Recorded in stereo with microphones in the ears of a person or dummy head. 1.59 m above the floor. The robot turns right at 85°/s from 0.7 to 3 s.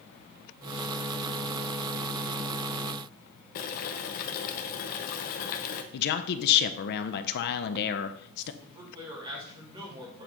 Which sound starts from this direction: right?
A man speaking, at 8.6 s.